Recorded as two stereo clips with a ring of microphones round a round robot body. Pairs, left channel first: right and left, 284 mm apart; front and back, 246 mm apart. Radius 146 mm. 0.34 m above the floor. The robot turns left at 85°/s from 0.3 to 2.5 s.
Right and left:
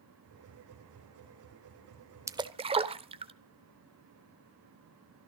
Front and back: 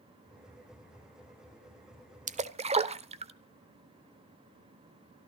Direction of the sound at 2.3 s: 160° left.